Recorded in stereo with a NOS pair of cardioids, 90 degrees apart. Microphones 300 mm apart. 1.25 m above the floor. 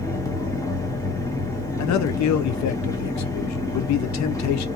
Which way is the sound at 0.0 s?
10° left.